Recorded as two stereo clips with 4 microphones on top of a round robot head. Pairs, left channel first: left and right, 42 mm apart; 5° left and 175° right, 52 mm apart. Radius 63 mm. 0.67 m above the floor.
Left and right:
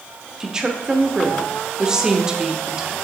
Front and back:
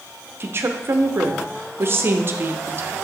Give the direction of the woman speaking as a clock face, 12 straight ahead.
5 o'clock.